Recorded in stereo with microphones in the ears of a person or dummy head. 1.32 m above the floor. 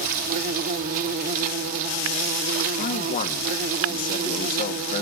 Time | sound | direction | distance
0.0 | an insect | 45° right (ahead or behind) | 0.8 m
2.8 | a man speaking | 40° left (ahead or behind) | 1.2 m